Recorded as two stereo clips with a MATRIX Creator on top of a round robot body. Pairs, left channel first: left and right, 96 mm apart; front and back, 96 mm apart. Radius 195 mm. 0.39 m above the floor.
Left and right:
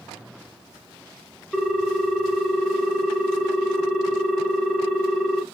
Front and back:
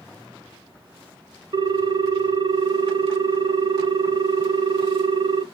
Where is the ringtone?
175° left, 0.7 m.